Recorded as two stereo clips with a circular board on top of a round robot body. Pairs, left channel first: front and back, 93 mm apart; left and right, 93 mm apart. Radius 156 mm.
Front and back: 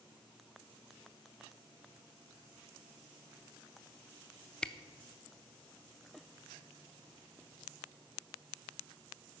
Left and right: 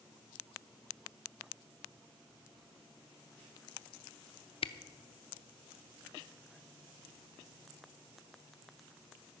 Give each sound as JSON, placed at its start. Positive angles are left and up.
{"t": 4.6, "sound": "a camera shutter", "azimuth_deg": 80, "distance_m": 0.8}